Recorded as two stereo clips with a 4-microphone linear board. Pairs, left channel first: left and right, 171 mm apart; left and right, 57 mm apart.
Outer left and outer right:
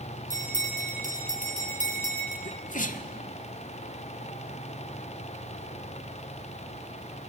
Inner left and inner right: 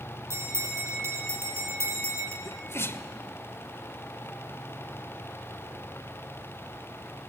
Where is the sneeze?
50° left (ahead or behind), 1.2 m.